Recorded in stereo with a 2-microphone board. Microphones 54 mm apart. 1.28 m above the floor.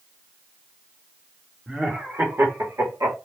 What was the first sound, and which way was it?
Laughter, 15° right (ahead or behind).